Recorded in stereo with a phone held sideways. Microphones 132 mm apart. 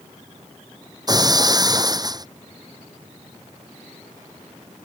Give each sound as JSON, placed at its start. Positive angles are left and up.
{"t": 1.1, "sound": "breaking glass", "side_deg": -30}